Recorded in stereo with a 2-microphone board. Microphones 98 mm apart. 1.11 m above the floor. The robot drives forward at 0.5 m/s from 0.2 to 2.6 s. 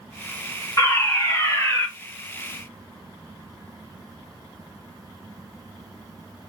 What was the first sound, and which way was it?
A fire alarm, 35° left (ahead or behind).